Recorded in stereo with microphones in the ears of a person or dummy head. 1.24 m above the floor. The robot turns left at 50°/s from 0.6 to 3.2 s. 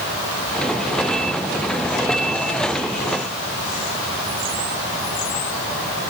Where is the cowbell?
I don't hear a cowbell.